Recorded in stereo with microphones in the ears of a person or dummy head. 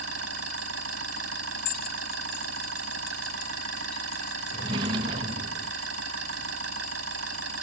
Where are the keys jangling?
55° left (ahead or behind).